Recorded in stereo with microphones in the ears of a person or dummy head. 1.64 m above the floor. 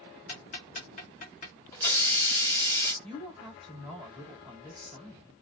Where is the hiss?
20° left (ahead or behind), 1.0 m.